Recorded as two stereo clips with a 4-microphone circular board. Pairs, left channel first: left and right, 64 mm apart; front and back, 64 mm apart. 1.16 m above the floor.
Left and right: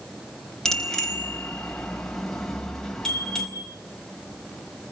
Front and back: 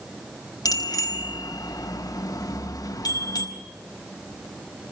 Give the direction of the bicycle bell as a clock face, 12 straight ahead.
12 o'clock.